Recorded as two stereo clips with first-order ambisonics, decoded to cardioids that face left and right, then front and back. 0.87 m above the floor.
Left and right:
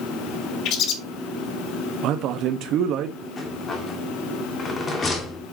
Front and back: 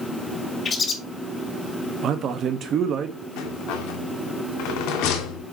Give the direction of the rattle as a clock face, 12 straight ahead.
11 o'clock.